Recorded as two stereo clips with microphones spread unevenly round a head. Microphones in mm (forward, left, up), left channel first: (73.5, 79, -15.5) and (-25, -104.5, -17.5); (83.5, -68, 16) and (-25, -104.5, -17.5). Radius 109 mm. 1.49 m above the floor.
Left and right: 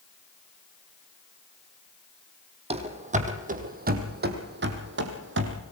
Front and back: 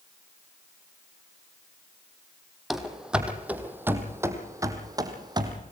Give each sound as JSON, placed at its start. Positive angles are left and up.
{"t": 2.7, "sound": "running footsteps", "azimuth_deg": -60, "distance_m": 2.5}